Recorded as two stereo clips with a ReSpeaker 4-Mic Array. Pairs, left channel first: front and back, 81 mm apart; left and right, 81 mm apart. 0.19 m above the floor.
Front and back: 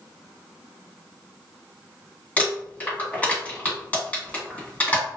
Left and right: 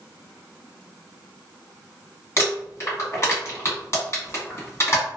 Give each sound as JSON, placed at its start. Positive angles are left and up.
{"t": 2.4, "sound": "crumpling", "azimuth_deg": 60, "distance_m": 1.6}